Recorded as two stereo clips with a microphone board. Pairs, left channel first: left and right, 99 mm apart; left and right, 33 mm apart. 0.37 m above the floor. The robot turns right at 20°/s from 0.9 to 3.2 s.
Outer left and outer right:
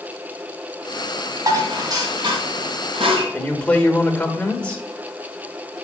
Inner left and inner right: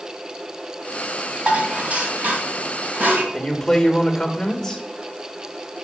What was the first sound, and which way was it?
Dishes clattering, 35° right (ahead or behind).